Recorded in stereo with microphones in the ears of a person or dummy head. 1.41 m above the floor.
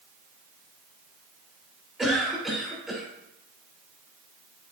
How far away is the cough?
About 5 m.